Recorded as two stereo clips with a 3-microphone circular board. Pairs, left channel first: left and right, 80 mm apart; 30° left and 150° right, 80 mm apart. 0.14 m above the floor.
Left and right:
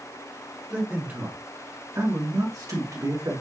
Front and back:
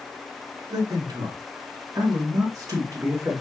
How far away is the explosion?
I don't hear an explosion.